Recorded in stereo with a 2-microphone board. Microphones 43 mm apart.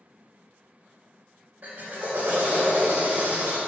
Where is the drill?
35° right (ahead or behind), 2.5 m.